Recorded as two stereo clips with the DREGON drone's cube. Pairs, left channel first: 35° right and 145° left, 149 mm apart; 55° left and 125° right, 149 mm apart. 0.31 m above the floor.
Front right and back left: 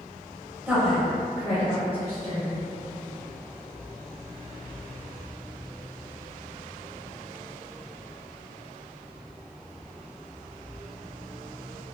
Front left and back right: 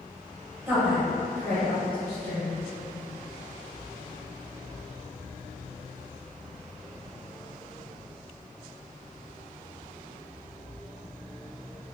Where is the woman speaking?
165° right, 0.9 m; by 2.6 s 10° right, 1.6 m.